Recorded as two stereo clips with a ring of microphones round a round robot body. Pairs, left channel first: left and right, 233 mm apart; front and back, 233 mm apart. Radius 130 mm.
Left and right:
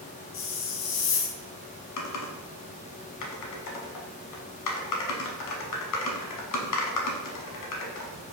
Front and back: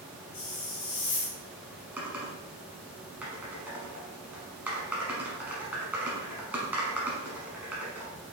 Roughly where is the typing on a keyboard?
Left.